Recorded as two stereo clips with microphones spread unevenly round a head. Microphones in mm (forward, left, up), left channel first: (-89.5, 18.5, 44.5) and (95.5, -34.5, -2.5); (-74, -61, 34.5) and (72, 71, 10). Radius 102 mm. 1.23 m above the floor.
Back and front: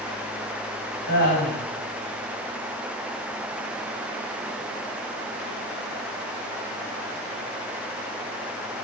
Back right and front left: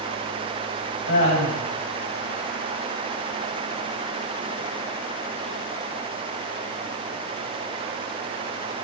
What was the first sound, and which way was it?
Laughter, 170° right.